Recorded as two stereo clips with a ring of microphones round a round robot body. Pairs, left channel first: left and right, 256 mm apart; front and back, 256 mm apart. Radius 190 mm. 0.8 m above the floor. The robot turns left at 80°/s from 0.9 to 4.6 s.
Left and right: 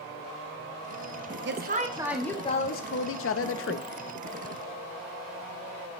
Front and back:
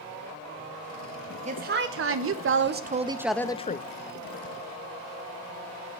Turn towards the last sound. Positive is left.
turn(degrees=-10)